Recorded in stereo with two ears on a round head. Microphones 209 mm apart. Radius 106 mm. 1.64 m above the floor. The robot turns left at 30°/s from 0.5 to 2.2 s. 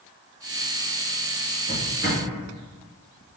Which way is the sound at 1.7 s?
45° right (ahead or behind).